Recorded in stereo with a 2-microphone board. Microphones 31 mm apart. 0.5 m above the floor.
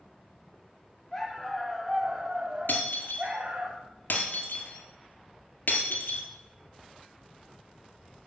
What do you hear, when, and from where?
1.1 s a dog barking: 10° left (ahead or behind), 1.5 m; by 3.7 s 65° right (ahead or behind), 1.6 m
2.7 s breaking glass: 75° left (ahead or behind), 1.8 m